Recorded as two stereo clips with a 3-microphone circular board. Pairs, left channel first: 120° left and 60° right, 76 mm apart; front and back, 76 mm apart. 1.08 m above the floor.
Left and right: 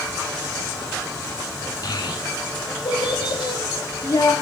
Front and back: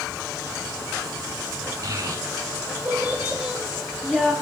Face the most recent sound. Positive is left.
turn(degrees=90)